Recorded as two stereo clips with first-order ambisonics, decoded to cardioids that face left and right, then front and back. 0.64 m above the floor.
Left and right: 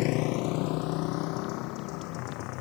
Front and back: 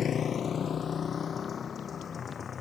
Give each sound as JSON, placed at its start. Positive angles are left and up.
{"t": 0.0, "sound": "a motorcycle", "azimuth_deg": 60}